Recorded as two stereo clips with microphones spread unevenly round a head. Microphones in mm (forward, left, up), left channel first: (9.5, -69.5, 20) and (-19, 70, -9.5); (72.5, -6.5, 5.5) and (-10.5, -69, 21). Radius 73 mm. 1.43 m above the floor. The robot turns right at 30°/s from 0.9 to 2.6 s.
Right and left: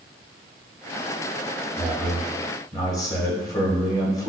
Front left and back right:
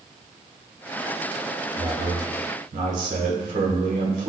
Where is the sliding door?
No sliding door in this recording.